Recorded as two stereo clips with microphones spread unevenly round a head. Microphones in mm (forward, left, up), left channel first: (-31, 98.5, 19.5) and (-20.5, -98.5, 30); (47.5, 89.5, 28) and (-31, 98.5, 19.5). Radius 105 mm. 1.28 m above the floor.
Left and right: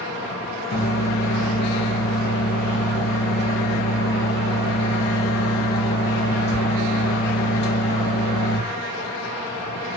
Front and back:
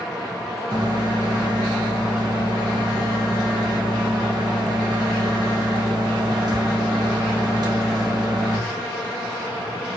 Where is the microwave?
135° left, 1.2 m.